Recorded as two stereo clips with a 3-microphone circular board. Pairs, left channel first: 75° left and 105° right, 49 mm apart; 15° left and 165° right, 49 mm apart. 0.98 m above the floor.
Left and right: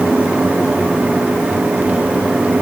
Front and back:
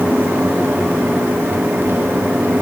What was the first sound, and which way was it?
Only background noise.